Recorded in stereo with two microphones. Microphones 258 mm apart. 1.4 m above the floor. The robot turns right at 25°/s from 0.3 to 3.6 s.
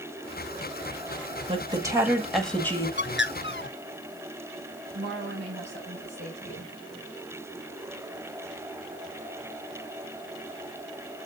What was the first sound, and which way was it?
A woman speaking, 20° right.